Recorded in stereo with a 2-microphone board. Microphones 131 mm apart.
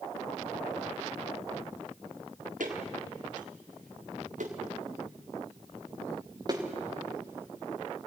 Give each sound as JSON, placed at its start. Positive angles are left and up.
{"t": 2.6, "sound": "footsteps", "side_deg": -85, "distance_m": 5.0}